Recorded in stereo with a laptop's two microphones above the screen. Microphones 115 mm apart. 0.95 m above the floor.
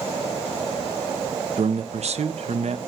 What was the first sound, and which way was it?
A man speaking, 60° right (ahead or behind).